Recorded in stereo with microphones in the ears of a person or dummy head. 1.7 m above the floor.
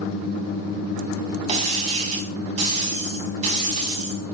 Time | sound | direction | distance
1.5 | breaking glass | 40° right (ahead or behind) | 5.5 m